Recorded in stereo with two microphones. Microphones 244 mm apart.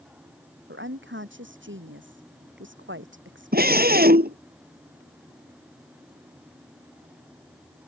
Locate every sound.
0.7 s a woman speaking: 50° right (ahead or behind)
3.5 s a scream: 40° right (ahead or behind)